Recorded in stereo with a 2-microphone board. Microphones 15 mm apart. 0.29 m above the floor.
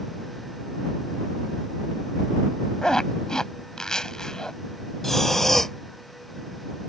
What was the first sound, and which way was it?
A zipper, 45° left (ahead or behind).